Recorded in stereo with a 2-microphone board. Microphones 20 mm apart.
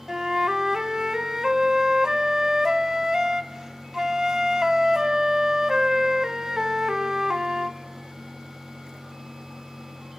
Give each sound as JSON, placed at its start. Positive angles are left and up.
{"t": 0.1, "sound": "a flute", "side_deg": -35, "distance_m": 0.8}